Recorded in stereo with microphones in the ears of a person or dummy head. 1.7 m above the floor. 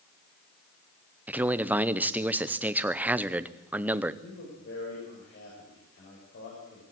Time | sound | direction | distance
1.3 | a man speaking | 10° right (ahead or behind) | 0.8 m
4.2 | a man speaking | 55° left (ahead or behind) | 7.5 m